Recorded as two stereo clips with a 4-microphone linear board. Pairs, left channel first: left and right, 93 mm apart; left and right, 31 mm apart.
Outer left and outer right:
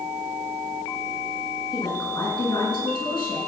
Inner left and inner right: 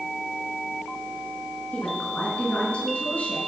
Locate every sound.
1.7 s a woman speaking: 55° left (ahead or behind), 5.5 m